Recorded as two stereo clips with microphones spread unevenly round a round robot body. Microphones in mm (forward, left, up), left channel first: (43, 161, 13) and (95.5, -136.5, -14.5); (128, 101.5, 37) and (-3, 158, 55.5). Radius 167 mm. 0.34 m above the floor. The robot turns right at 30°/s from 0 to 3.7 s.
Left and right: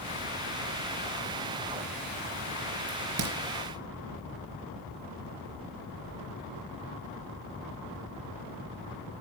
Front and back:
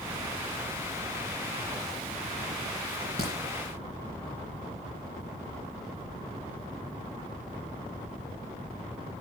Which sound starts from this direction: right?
A crack, at 2.9 s.